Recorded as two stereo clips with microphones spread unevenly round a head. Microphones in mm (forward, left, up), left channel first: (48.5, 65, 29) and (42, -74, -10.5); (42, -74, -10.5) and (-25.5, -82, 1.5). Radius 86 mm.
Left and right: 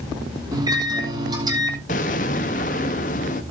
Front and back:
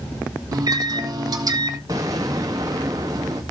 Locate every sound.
0.5 s a microwave: 170° right, 2 m
1.9 s an explosion: 125° left, 1.0 m